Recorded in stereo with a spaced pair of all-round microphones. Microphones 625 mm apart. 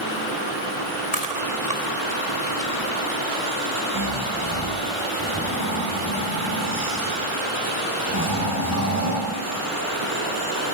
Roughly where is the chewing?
Left.